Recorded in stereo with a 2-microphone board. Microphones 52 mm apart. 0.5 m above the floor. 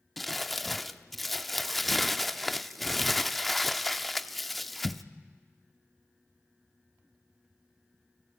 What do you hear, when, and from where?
0.2 s crumpling: centre (ahead or behind), 0.6 m